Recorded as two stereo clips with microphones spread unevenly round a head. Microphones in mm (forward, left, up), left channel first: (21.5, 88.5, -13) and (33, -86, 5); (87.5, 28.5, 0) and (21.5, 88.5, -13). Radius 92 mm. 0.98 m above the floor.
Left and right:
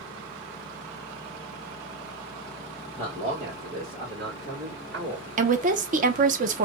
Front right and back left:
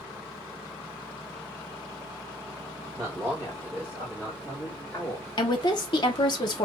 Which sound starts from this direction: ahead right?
A woman speaking, at 5.4 s.